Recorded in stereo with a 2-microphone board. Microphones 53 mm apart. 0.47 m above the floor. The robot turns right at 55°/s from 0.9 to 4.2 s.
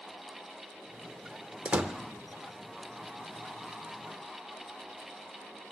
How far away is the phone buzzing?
I don't hear a phone buzzing.